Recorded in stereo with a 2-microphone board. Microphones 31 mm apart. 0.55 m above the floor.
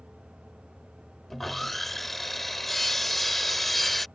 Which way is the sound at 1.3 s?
5° left (ahead or behind).